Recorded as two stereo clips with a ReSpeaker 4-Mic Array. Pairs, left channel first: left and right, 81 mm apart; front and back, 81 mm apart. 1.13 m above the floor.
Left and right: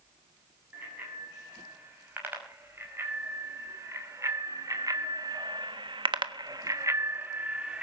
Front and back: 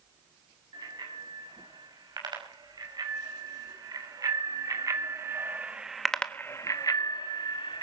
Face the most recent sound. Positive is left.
turn(degrees=-15)